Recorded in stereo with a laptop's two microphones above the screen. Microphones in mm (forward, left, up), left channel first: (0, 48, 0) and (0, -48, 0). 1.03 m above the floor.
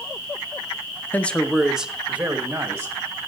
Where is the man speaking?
15° left (ahead or behind), 0.5 m; by 3.0 s 25° right (ahead or behind), 1.3 m.